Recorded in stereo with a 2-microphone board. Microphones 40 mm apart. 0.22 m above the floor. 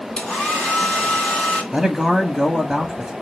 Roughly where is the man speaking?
Centre.